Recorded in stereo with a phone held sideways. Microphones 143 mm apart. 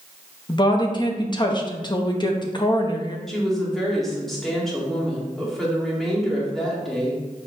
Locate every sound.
0.5 s a woman speaking: 30° left (ahead or behind), 0.8 m
3.3 s a woman speaking: centre (ahead or behind), 1.9 m